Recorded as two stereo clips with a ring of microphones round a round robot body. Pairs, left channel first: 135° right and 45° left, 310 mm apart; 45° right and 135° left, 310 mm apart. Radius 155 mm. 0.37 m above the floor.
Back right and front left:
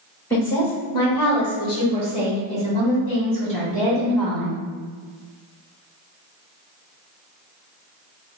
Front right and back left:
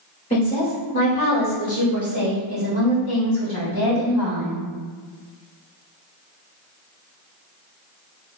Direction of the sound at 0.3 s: 60° right.